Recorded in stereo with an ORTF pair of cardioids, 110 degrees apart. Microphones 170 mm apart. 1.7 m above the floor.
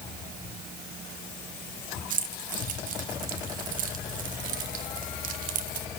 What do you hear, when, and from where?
2.1 s keys jangling: 55° right, 1.8 m